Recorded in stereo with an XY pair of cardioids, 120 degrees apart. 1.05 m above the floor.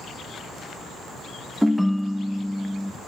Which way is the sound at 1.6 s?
Straight ahead.